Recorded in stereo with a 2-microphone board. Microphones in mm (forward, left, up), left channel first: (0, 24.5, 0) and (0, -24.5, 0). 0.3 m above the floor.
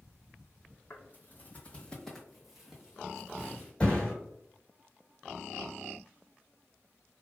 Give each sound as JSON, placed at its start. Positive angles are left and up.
{"t": 0.9, "sound": "footsteps", "side_deg": 45, "distance_m": 1.0}
{"t": 3.8, "sound": "a thud", "side_deg": 20, "distance_m": 1.7}